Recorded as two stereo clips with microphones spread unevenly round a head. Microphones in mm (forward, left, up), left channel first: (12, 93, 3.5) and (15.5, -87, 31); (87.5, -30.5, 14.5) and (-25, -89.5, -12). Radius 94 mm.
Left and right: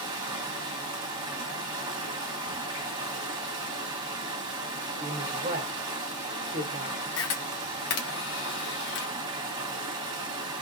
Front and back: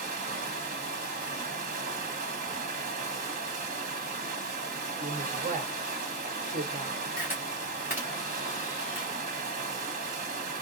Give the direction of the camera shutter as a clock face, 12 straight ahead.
8 o'clock.